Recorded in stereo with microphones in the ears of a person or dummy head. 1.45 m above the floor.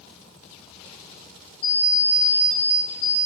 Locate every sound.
1.6 s an alarm clock: 55° left (ahead or behind), 1.6 m